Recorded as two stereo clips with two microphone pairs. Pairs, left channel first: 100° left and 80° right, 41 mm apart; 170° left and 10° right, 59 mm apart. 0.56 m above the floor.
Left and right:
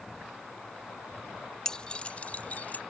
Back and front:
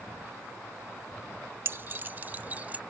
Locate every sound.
1.6 s keys jangling: 30° left; by 2.8 s 55° left